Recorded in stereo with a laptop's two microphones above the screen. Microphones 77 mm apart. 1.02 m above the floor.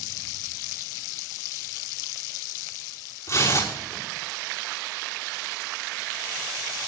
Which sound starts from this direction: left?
Tearing paper, at 3.3 s.